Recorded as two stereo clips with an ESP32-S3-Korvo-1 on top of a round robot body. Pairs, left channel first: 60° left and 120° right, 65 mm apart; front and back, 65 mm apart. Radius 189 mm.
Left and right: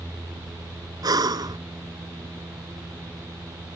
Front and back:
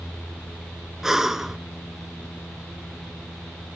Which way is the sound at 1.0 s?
95° right.